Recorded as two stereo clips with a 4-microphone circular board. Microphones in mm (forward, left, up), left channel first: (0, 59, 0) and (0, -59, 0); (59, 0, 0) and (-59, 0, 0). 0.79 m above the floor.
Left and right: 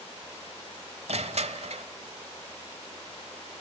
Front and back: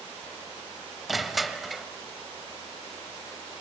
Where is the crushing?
90° right, 1.0 m.